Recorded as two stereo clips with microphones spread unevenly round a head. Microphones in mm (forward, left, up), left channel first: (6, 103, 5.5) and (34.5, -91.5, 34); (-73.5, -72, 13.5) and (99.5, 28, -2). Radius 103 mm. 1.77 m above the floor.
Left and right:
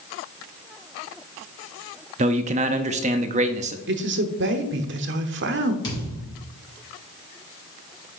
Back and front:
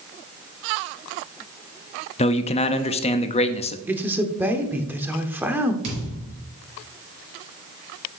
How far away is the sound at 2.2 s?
About 0.5 m.